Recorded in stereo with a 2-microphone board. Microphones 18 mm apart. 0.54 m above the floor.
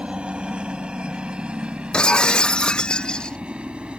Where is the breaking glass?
50° left (ahead or behind).